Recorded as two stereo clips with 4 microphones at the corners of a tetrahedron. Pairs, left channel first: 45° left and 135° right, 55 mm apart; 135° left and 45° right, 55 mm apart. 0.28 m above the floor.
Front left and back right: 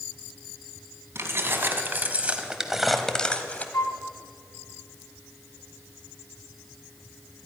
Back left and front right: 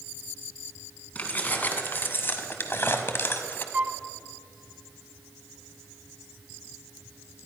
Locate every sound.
1.1 s keys jangling: 170° right, 1.6 m; by 3.6 s 95° left, 1.1 m
3.7 s a flute: 15° left, 0.6 m